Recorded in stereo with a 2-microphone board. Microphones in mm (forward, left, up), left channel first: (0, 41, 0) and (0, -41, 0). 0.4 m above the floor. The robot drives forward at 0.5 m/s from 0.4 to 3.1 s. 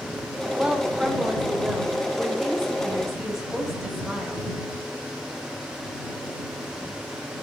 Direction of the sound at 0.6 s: 15° right (ahead or behind).